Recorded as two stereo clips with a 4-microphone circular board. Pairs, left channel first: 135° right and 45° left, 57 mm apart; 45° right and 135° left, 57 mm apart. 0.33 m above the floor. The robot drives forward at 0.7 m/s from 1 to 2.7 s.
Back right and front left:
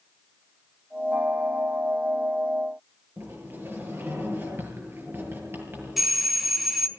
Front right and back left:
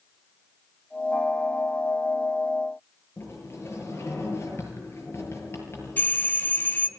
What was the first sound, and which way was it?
A sliding door, 5° right.